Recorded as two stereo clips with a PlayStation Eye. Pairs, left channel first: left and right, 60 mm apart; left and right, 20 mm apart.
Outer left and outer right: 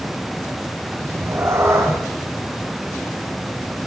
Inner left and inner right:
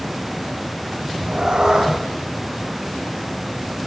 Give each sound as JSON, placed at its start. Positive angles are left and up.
{"t": 1.0, "sound": "a cat meowing", "side_deg": -45, "distance_m": 8.0}